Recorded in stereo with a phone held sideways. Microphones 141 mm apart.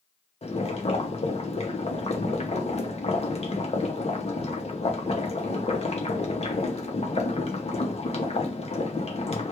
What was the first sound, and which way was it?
Boiling, 50° left (ahead or behind).